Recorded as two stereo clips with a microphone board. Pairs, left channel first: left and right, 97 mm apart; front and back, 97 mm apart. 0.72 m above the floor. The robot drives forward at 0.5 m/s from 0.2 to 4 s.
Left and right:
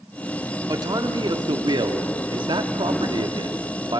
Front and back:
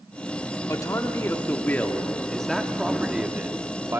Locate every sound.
0.7 s a man speaking: 50° right, 1.7 m; by 4.0 s 120° right, 1.6 m